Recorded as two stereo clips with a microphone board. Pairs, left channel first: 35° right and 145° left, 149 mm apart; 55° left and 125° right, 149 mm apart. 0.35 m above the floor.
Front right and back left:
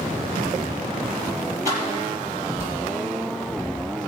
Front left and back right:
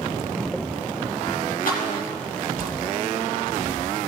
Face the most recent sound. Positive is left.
turn(degrees=75)